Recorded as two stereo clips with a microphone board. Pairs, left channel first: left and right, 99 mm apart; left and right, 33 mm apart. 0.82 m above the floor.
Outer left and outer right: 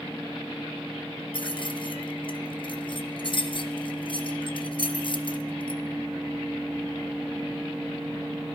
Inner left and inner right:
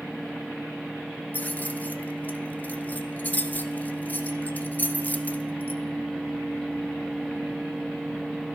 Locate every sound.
1.3 s keys jangling: 55° left (ahead or behind), 0.8 m